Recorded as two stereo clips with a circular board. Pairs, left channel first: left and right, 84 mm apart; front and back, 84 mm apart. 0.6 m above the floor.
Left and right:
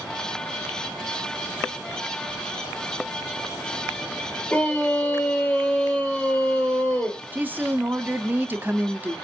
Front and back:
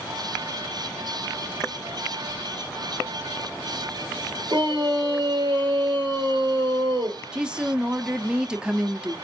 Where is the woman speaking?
115° right, 0.6 m.